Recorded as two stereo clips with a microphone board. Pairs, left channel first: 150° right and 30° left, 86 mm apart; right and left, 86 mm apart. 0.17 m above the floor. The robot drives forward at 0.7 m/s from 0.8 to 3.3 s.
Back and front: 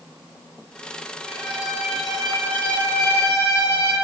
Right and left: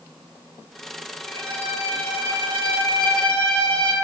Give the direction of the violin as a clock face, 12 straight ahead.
1 o'clock.